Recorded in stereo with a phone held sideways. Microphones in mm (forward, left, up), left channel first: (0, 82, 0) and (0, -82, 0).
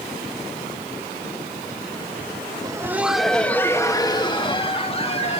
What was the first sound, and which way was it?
Laughter, 20° right (ahead or behind).